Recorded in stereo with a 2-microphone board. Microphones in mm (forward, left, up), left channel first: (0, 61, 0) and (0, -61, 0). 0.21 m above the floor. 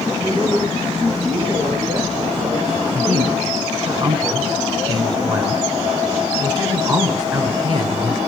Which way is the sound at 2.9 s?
35° right (ahead or behind).